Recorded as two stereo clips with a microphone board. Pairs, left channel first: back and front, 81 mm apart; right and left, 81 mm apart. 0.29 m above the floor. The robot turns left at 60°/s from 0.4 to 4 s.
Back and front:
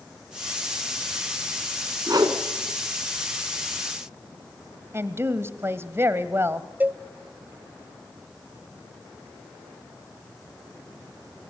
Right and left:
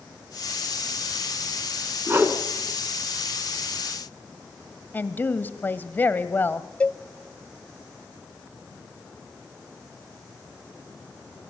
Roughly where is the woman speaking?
Ahead right.